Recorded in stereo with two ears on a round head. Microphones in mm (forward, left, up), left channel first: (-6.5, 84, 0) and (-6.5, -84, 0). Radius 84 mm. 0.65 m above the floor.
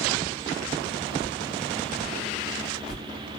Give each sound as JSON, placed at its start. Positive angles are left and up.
{"t": 1.2, "sound": "a whoosh", "side_deg": 35, "distance_m": 2.5}